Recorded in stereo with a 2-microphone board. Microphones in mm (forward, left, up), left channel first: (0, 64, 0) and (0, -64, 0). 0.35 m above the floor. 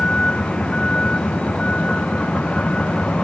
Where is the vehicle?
5° left (ahead or behind).